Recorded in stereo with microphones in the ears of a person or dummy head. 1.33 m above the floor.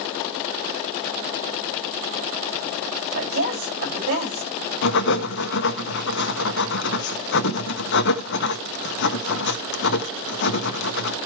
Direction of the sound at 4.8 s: 60° left (ahead or behind).